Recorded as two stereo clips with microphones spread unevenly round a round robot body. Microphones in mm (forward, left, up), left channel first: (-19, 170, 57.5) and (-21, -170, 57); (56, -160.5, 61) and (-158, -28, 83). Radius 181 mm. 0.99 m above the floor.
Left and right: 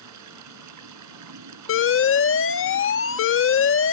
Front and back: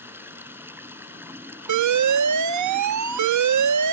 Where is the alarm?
145° left.